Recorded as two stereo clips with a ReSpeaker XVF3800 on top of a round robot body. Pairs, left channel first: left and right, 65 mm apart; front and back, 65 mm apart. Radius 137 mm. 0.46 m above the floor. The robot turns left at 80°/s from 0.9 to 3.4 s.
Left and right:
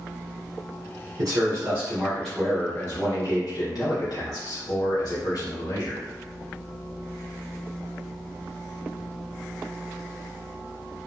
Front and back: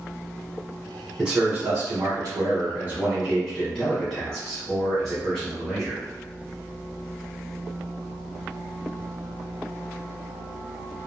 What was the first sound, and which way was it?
A man speaking, 85° right.